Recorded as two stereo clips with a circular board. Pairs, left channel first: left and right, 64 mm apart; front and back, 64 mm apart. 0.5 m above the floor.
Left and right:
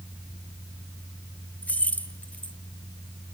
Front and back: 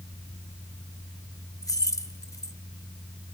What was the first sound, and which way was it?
Keys jangling, 25° left.